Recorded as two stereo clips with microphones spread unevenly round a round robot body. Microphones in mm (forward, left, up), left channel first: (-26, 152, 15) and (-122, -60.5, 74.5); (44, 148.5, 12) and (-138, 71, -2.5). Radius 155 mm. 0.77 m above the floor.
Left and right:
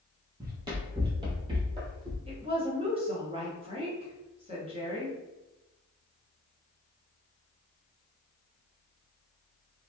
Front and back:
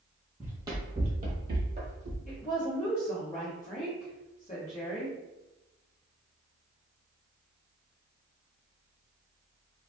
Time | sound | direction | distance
0.4 | running footsteps | 70° right | 0.9 m
2.3 | a woman speaking | 40° right | 0.9 m